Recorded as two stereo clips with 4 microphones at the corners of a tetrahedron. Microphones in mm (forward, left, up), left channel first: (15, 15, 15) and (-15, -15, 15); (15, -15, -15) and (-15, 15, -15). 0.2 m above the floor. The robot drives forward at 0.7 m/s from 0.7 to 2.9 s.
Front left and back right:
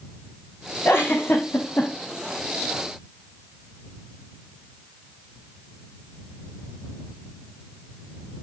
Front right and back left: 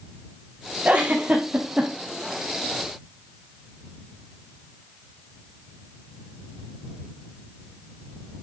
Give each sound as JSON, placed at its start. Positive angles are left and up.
{"t": 0.8, "sound": "a giggle", "azimuth_deg": 75, "distance_m": 4.5}